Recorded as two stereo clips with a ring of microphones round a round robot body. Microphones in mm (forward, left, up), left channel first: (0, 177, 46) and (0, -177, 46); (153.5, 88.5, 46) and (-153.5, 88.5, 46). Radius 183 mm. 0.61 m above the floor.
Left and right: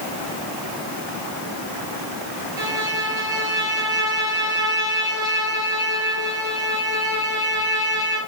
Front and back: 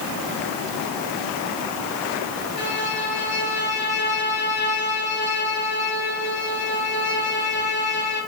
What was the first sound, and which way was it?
A violin, 60° right.